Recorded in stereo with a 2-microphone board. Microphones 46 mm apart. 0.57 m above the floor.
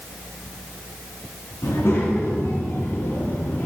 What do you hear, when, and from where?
1.6 s a child speaking: 70° left (ahead or behind), 3.5 m